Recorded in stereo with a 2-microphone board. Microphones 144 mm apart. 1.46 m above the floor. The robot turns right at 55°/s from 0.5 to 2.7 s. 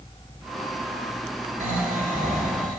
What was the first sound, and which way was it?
Snoring, 120° right.